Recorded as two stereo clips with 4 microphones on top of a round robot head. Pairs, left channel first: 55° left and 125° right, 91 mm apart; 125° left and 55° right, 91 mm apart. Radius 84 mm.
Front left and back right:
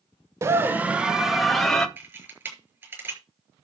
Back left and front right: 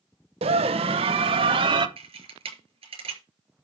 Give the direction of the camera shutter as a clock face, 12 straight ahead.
2 o'clock.